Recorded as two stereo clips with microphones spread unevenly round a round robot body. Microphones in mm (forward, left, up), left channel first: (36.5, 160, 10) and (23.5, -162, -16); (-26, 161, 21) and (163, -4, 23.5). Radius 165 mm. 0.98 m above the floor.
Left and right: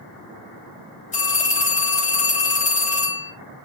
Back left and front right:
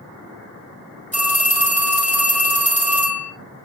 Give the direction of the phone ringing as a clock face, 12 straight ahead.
11 o'clock.